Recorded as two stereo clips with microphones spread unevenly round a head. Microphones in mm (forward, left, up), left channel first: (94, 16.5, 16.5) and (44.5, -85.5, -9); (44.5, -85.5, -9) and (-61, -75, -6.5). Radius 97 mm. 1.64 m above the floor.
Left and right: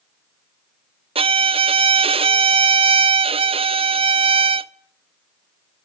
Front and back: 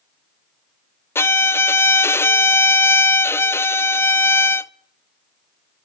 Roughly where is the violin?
Right.